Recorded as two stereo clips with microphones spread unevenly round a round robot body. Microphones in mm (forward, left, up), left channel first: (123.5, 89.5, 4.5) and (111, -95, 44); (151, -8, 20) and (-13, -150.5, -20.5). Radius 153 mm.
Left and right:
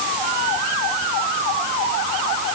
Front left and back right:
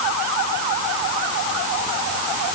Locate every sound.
Only background noise.